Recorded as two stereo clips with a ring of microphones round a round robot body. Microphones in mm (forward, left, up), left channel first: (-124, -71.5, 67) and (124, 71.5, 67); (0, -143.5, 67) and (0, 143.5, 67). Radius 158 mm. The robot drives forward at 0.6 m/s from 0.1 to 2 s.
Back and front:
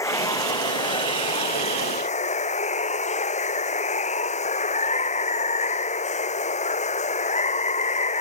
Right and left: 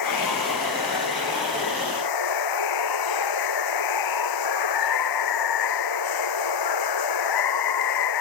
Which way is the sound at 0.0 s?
70° right.